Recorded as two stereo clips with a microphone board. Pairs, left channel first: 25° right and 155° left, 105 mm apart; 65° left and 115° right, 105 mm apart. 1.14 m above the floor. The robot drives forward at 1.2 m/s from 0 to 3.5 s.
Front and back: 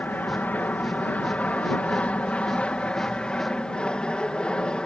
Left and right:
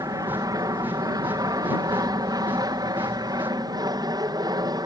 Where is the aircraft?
90° right; by 4.9 s 100° right.